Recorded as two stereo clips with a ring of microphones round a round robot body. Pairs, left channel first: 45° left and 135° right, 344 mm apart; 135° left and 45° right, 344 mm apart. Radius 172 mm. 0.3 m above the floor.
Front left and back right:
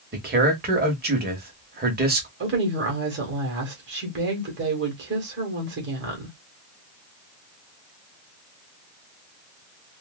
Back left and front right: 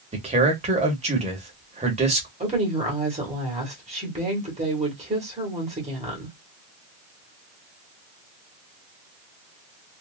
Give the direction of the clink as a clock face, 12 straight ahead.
No clink in this recording.